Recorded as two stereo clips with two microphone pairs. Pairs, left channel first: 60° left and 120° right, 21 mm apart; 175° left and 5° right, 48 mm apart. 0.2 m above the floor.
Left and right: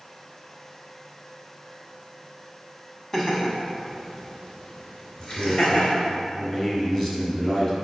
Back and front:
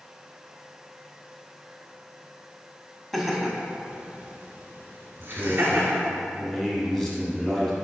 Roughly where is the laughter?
Left.